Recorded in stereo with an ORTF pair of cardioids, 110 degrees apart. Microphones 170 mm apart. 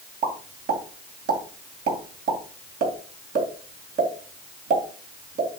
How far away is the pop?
About 2.5 m.